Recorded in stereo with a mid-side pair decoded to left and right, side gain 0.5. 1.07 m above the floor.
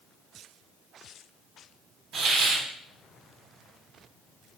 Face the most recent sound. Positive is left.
turn(degrees=-60)